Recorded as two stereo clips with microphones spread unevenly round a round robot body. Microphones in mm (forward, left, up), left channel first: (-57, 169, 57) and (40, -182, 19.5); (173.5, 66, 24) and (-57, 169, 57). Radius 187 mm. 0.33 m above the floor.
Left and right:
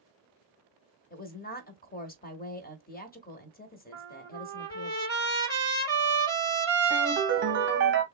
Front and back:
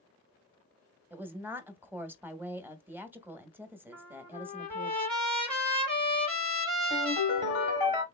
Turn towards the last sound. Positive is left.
turn(degrees=-125)